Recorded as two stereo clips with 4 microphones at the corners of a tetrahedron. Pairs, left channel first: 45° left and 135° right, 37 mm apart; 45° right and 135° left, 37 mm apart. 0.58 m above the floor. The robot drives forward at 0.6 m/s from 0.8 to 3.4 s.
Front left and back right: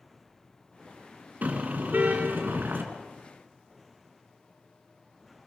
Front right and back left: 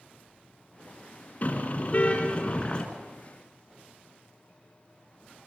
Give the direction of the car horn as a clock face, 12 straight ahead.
3 o'clock.